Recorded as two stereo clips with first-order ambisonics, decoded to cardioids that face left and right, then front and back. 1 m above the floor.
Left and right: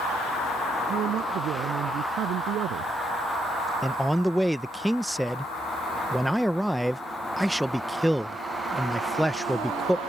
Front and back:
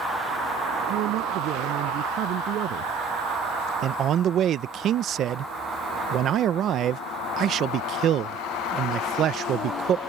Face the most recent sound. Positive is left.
turn(degrees=180)